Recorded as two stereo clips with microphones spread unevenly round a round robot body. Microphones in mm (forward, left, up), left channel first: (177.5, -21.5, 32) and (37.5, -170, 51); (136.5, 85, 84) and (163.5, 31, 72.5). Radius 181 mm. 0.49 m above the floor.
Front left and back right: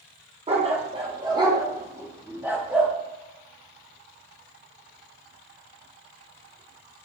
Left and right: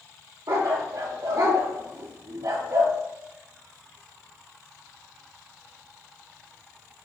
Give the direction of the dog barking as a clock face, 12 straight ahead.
2 o'clock.